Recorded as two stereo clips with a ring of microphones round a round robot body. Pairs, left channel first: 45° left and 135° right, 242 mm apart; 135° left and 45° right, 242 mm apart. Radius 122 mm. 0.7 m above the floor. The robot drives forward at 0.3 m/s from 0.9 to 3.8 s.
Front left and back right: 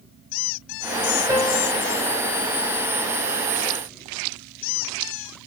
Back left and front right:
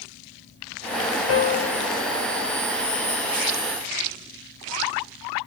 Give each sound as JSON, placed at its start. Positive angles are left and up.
{"t": 1.3, "sound": "a piano", "azimuth_deg": 155, "distance_m": 1.3}